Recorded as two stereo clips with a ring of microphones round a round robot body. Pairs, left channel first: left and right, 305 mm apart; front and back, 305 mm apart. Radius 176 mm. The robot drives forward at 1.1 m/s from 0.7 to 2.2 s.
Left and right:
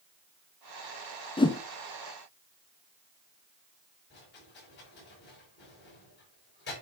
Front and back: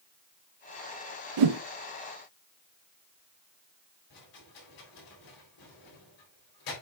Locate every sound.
1.4 s a whoosh: 165° left, 0.5 m; by 1.6 s 170° left, 0.8 m
4.1 s a rattle: 30° left, 3.5 m